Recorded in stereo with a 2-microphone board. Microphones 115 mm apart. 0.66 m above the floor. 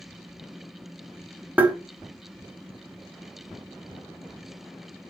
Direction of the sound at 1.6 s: 15° right (ahead or behind).